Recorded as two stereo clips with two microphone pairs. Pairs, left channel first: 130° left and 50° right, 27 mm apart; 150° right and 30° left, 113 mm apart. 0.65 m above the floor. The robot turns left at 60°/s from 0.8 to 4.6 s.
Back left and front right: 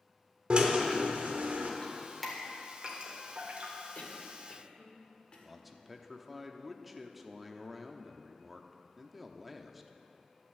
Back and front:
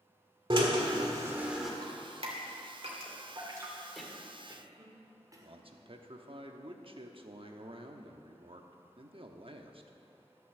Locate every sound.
0.5 s a drill: 10° right, 1.4 m; by 1.7 s 65° right, 1.4 m
1.8 s dripping: 75° left, 2 m; by 3.8 s 40° right, 2 m
4.0 s a cough: 120° left, 1.9 m; by 5.6 s 80° left, 1.9 m
5.4 s a man speaking: 35° left, 0.9 m